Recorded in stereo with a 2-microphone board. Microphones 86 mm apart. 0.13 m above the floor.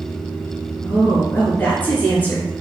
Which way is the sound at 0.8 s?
20° left (ahead or behind).